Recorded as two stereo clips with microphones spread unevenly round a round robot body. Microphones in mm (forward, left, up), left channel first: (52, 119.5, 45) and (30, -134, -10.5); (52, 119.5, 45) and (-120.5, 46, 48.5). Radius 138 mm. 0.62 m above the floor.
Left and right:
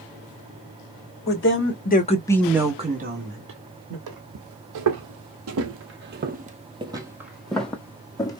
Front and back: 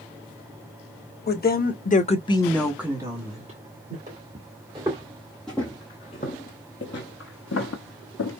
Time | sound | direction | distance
1.3 | a woman speaking | 45° left | 1.7 m
4.1 | footsteps | 95° right | 1.4 m